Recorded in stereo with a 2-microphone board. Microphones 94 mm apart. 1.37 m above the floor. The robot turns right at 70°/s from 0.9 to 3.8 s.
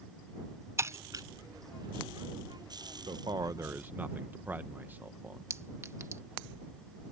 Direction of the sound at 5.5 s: 30° right (ahead or behind).